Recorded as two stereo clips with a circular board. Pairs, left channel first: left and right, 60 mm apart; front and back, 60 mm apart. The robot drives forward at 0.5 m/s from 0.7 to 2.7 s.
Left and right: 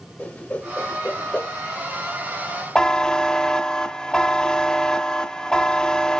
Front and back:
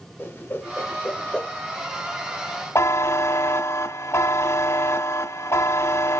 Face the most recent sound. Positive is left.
turn(degrees=15)